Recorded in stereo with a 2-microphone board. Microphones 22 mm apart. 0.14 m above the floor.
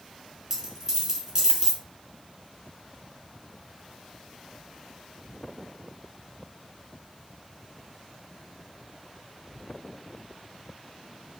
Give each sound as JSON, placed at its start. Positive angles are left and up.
{"t": 0.5, "sound": "a dropped coin", "side_deg": -25, "distance_m": 1.3}